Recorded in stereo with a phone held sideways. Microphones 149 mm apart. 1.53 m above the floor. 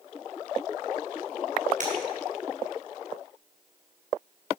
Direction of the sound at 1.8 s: 60° right (ahead or behind).